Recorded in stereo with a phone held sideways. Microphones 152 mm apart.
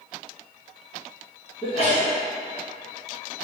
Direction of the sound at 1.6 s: 40° left (ahead or behind).